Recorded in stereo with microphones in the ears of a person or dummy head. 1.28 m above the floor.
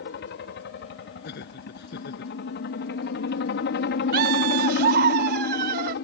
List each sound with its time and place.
0.0 s a helicopter: 50° left (ahead or behind)
1.2 s laughter: 60° left (ahead or behind)
4.1 s laughter: 50° right (ahead or behind)